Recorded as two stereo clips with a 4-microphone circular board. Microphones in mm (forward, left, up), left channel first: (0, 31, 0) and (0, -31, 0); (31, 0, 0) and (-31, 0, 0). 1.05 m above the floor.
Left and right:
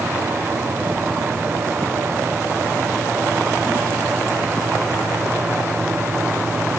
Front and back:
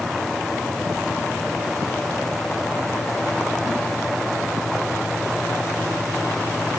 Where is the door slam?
No door slam in this recording.